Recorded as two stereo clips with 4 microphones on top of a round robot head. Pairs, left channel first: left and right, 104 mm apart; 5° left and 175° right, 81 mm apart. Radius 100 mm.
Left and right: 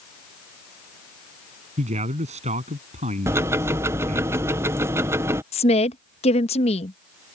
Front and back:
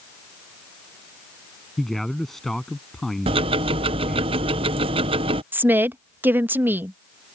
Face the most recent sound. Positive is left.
turn(degrees=120)